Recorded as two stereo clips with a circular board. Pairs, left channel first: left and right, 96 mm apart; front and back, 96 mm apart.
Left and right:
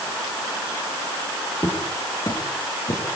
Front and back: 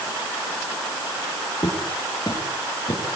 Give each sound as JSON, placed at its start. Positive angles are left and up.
{"t": 1.6, "sound": "footsteps", "azimuth_deg": 45, "distance_m": 7.5}